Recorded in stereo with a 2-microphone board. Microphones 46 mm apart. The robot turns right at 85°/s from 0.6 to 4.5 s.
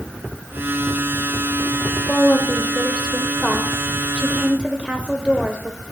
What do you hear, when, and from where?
2.1 s a woman speaking: 15° left (ahead or behind), 1.0 m; by 5.8 s 20° right (ahead or behind), 1.0 m